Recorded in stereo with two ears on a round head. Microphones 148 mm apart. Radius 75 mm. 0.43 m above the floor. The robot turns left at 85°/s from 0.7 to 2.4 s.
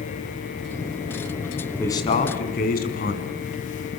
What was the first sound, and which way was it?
A man speaking, 170° left.